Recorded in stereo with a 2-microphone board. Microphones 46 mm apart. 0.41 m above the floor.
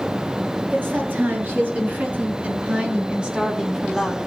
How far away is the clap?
No clap in this recording.